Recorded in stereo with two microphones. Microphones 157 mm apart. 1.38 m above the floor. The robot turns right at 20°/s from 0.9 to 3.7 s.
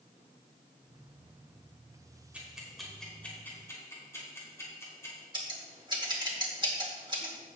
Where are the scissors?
30° right (ahead or behind), 2 m.